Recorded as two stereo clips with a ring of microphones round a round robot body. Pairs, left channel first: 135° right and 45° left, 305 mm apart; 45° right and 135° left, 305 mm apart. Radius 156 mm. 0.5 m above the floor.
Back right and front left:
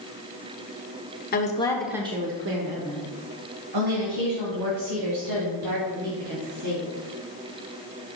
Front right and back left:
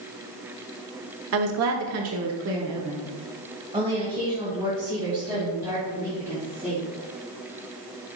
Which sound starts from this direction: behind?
A woman speaking, at 1.3 s.